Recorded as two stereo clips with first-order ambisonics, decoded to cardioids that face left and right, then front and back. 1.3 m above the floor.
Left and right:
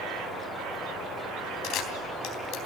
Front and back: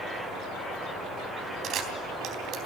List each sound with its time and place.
1.6 s a camera shutter: 130° left, 3.5 m